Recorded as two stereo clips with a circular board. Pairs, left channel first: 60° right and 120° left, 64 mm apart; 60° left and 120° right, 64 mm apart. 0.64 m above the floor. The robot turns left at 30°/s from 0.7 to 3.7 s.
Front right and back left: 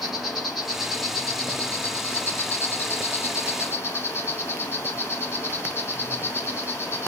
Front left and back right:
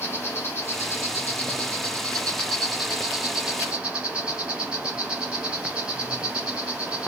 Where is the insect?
35° left, 2.5 m; by 7.1 s 55° right, 2.5 m.